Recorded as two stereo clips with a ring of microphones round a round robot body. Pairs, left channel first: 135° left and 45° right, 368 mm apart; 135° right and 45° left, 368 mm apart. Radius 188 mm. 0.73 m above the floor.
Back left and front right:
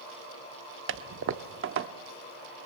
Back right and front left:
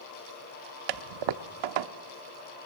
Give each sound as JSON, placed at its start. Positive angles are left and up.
{"t": 0.9, "sound": "a toilet flushing", "azimuth_deg": 15, "distance_m": 0.8}